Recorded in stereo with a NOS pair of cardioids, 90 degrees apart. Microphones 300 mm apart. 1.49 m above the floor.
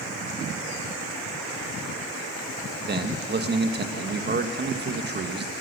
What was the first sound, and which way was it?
A man speaking, 35° right.